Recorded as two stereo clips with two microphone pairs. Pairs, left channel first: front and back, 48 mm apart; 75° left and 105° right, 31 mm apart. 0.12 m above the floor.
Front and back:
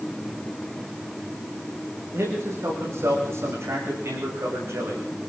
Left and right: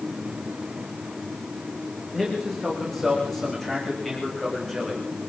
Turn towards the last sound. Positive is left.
turn(degrees=155)